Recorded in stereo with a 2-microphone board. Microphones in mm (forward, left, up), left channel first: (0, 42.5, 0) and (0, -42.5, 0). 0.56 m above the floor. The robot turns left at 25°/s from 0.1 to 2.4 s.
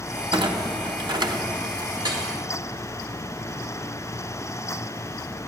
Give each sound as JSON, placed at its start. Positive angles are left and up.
{"t": 0.3, "sound": "a clunk", "side_deg": -80, "distance_m": 1.1}
{"t": 2.0, "sound": "dripping", "side_deg": -50, "distance_m": 2.5}